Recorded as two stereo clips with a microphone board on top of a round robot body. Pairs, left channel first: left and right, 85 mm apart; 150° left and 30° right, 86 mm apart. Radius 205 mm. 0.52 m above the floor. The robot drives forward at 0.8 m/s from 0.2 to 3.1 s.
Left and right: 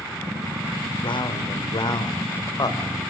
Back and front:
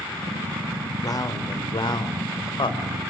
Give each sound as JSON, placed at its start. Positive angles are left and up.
{"t": 1.0, "sound": "a man speaking", "azimuth_deg": 105, "distance_m": 3.0}